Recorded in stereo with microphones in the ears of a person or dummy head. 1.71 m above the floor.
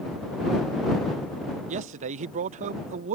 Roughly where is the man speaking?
Right.